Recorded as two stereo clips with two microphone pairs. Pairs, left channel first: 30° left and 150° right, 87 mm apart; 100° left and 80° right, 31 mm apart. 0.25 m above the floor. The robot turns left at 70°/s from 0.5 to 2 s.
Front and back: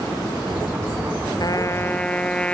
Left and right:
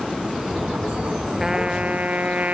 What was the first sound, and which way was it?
A trumpet, 5° right.